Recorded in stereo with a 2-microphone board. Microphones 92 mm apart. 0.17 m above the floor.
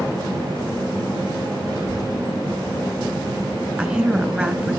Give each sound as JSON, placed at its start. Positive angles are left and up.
{"t": 1.7, "sound": "a child speaking", "side_deg": 45, "distance_m": 6.0}
{"t": 3.8, "sound": "a woman speaking", "side_deg": -15, "distance_m": 2.0}